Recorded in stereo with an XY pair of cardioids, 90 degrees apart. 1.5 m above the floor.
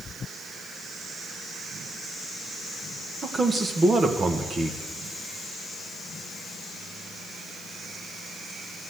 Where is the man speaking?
35° right, 1.6 m.